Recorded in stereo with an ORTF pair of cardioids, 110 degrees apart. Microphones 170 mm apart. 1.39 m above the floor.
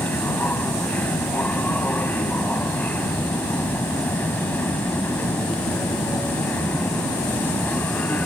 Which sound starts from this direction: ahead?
A machine running, at 0.0 s.